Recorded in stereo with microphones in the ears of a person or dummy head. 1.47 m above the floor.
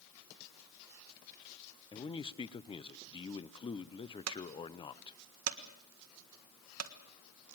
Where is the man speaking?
25° left (ahead or behind), 0.7 m.